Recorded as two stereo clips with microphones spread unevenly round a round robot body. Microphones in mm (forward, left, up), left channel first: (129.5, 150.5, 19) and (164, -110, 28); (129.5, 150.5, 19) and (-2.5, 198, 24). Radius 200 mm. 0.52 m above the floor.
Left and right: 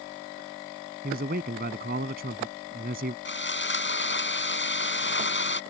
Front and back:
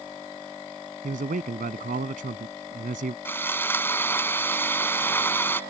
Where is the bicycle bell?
No bicycle bell in this recording.